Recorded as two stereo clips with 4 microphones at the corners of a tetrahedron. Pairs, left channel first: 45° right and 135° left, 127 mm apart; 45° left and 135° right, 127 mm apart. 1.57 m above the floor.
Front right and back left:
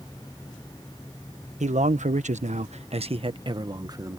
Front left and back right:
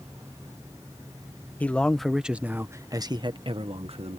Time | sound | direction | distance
1.6 | a man speaking | 120° left | ?